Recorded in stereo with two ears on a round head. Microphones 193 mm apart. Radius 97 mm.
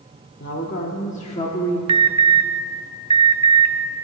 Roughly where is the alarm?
Right.